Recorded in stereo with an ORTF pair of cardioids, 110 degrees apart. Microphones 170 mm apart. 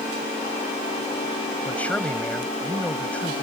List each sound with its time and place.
1.6 s a man speaking: 10° left